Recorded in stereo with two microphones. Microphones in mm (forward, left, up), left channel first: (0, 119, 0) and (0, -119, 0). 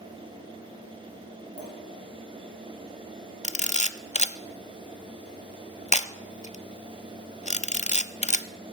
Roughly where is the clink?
Left.